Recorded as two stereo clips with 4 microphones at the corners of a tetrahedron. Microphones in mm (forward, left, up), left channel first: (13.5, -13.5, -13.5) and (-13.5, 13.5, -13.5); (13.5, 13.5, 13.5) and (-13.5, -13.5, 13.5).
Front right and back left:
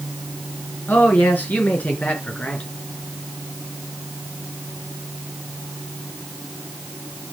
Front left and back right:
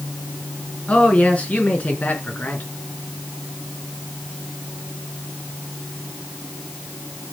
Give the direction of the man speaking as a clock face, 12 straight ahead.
12 o'clock.